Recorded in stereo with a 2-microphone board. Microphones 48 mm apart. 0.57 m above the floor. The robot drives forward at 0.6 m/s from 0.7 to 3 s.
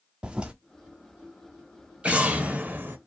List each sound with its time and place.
0.2 s a toilet flushing: 20° right (ahead or behind), 0.6 m
2.0 s an explosion: 25° right (ahead or behind), 0.9 m; by 3.0 s 50° right (ahead or behind), 0.5 m